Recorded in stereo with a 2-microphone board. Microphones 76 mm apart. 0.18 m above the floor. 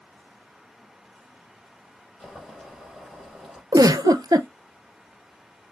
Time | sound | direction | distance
2.2 | boiling | 5° left (ahead or behind) | 4 m
3.7 | a giggle | 60° right (ahead or behind) | 0.6 m